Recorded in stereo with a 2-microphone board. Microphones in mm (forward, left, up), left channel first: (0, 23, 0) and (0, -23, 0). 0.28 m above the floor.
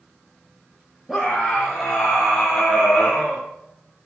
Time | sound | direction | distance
1.1 | a scream | 10° right (ahead or behind) | 5.5 m